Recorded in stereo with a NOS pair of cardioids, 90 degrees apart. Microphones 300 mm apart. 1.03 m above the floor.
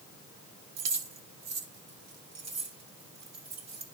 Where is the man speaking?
No man speaking in this recording.